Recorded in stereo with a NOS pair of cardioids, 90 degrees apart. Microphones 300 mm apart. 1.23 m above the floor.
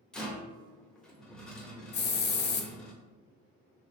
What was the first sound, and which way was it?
A rattle, 5° left.